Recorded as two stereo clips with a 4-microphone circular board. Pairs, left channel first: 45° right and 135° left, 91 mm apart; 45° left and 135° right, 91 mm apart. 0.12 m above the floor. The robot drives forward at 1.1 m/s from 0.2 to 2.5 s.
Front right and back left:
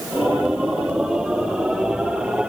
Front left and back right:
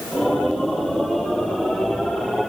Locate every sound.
Only background noise.